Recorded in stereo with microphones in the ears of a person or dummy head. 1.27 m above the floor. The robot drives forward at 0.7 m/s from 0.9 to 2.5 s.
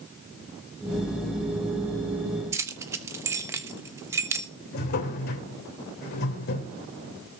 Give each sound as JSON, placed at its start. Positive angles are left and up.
{"t": 2.5, "sound": "keys jangling", "side_deg": -15, "distance_m": 1.0}
{"t": 4.7, "sound": "a drawer", "side_deg": 50, "distance_m": 3.0}